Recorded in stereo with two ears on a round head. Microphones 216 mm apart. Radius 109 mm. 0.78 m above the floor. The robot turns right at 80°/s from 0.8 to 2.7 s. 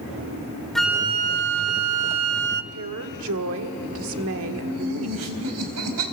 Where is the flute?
Straight behind, 0.6 m; by 2.6 s 35° right, 0.6 m.